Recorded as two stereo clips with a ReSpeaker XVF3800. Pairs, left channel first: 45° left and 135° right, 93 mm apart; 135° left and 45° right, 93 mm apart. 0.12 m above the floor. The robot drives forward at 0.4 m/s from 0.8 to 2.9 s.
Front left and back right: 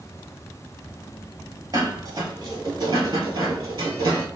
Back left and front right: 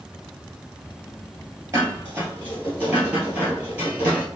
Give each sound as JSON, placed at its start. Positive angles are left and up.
{"t": 1.7, "sound": "dishes clattering", "azimuth_deg": -100, "distance_m": 1.5}